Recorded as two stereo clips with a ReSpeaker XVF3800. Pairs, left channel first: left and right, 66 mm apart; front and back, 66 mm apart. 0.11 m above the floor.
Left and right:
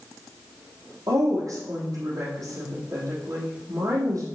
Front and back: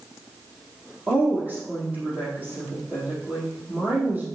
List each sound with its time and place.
1.1 s a woman speaking: 110° right, 4.5 m